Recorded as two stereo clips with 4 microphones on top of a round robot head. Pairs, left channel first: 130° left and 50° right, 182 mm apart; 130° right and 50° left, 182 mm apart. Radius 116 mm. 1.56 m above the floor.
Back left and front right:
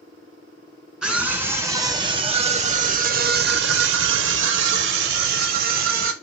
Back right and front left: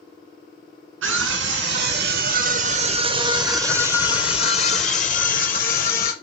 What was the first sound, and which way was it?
A scream, 50° left.